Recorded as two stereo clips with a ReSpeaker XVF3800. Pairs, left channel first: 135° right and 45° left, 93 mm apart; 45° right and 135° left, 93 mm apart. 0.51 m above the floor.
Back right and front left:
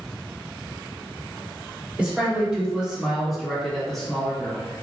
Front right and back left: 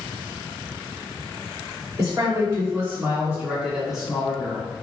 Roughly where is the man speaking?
Behind left.